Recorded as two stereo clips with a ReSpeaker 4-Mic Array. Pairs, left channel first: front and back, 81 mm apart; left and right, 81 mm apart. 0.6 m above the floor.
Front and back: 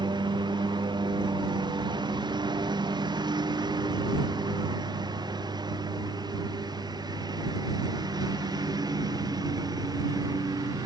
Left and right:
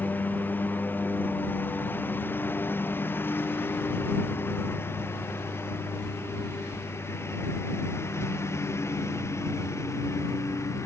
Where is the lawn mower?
155° left; by 10.9 s 145° left.